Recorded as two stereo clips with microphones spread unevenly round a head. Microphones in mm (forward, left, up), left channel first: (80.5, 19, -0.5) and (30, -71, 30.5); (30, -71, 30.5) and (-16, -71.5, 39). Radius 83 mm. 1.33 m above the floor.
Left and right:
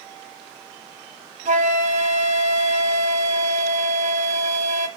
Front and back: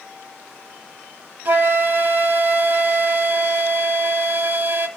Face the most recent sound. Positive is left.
turn(degrees=-140)